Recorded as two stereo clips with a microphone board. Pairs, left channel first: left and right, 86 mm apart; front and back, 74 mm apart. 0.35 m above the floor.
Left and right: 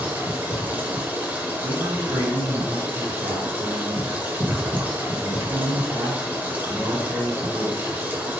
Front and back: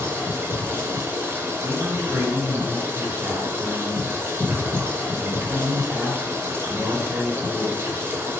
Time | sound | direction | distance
0.0 | running water | 150° right | 1.0 m
1.6 | a man speaking | 135° right | 1.8 m